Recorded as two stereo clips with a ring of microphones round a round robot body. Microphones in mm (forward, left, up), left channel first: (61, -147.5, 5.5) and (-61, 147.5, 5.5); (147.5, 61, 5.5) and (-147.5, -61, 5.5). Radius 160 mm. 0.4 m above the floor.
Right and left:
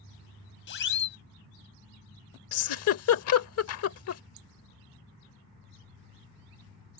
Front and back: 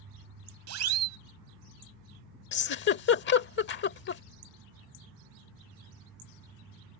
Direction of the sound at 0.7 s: 120° right.